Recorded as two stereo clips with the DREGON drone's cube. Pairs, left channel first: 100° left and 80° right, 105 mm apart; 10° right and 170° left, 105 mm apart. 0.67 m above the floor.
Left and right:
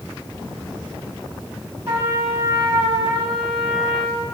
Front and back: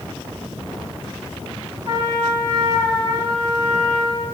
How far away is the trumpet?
About 4.5 m.